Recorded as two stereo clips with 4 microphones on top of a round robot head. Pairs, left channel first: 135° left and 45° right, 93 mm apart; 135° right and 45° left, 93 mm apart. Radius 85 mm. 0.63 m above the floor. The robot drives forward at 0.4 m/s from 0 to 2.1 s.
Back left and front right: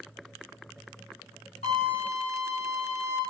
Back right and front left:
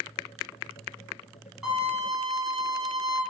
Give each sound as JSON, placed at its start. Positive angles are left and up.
{"t": 1.6, "sound": "a violin", "azimuth_deg": 130, "distance_m": 1.7}